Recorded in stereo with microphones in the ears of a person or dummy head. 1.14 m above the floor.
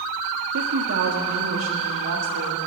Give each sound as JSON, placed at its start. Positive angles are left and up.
{"t": 0.5, "sound": "a woman speaking", "side_deg": -80, "distance_m": 1.5}